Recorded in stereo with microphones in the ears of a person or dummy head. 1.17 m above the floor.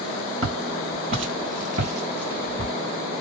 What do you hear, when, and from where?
0.4 s footsteps: 35° right (ahead or behind), 1.9 m; by 2.7 s 25° right (ahead or behind), 1.6 m